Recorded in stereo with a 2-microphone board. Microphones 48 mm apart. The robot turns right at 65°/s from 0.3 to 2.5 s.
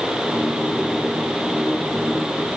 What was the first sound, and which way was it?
Only background noise.